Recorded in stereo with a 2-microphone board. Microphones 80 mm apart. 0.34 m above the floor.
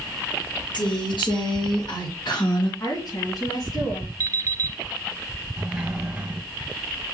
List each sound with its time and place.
0.7 s a woman speaking: 70° left (ahead or behind), 4.5 m; by 2.7 s 65° left (ahead or behind), 3 m
2.8 s a woman speaking: 55° left (ahead or behind), 3 m
4.2 s an alarm clock: 45° right (ahead or behind), 1.0 m
5.6 s a sliding door: 10° right (ahead or behind), 2 m